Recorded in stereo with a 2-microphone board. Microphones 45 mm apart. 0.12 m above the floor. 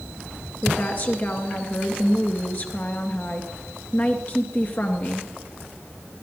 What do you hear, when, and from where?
0.6 s a woman speaking: 40° left (ahead or behind), 2 m